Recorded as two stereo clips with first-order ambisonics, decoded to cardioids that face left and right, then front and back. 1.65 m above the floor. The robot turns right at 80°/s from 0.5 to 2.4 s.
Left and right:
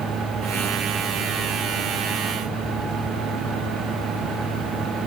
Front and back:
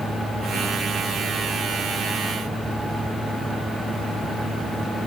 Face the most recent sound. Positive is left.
No sound to turn to.